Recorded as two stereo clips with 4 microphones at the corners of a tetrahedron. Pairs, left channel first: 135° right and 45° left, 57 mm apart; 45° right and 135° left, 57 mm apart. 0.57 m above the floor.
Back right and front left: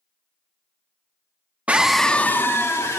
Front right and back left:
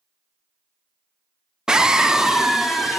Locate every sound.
1.7 s a scream: 75° left, 0.6 m; by 3.0 s 140° right, 1.1 m